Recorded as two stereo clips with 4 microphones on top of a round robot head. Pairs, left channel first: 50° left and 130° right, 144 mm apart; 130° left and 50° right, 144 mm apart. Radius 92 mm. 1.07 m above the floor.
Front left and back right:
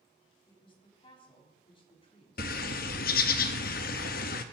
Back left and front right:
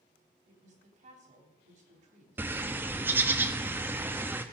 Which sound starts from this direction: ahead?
A woman speaking, at 0.5 s.